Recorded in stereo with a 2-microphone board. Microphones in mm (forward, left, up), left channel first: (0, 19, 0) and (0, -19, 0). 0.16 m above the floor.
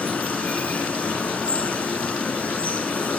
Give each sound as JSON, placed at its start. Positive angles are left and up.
{"t": 0.0, "sound": "running water", "side_deg": 35, "distance_m": 2.5}